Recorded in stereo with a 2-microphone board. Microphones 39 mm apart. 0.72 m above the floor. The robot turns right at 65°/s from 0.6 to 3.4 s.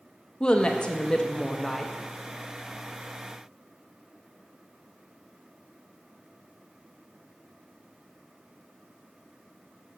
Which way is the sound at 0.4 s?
25° left (ahead or behind).